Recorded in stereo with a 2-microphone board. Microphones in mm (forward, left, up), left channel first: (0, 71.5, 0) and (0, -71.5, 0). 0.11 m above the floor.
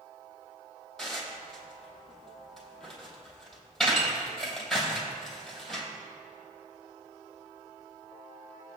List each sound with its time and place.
1.0 s dishes clattering: 5° left (ahead or behind), 3 m